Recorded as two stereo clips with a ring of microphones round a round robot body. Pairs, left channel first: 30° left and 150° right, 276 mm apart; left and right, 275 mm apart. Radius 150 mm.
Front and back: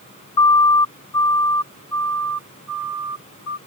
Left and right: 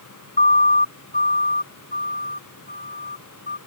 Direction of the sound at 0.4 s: 25° left.